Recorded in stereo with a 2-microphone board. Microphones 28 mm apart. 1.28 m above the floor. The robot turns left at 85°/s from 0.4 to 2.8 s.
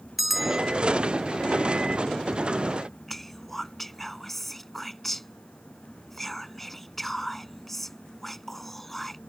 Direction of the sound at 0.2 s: Centre (ahead or behind).